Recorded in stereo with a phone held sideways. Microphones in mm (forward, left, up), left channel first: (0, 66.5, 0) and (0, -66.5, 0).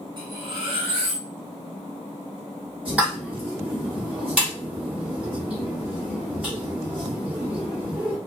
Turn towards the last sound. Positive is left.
turn(degrees=-10)  # may be behind; listen again after turning